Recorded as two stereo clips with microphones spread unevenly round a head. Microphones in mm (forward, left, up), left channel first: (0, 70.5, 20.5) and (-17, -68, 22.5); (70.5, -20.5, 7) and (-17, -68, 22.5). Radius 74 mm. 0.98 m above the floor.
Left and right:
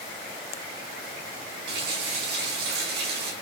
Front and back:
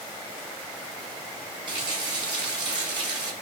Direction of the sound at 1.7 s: 110° right.